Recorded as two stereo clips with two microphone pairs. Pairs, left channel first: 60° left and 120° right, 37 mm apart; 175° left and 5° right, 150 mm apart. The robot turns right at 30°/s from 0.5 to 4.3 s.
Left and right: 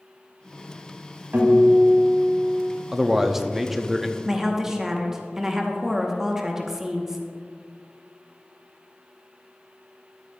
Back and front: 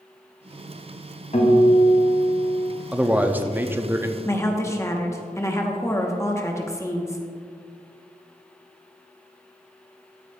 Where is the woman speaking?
175° right, 0.9 m; by 7.3 s 170° right, 0.9 m.